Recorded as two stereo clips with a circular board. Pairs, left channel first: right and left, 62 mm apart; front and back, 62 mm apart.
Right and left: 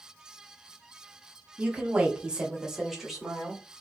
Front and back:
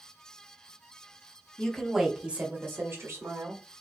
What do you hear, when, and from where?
1.6 s a woman speaking: 60° left, 1.0 m; by 3.6 s straight behind, 1.6 m